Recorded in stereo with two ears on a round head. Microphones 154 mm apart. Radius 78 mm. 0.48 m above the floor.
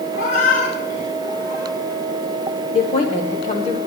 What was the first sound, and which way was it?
A cat meowing, 75° left (ahead or behind).